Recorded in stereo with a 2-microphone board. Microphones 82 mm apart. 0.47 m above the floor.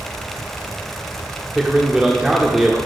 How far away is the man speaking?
About 1.0 m.